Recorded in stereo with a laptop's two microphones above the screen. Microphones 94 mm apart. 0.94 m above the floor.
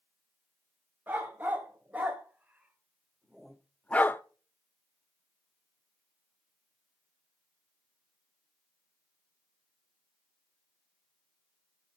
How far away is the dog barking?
About 2 m.